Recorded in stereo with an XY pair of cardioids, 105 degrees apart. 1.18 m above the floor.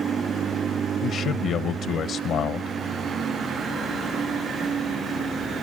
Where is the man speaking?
65° left, 0.8 m.